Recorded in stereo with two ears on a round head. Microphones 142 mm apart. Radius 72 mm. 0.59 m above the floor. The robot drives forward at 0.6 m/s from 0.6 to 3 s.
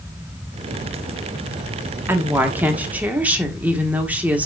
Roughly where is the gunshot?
I don't hear a gunshot.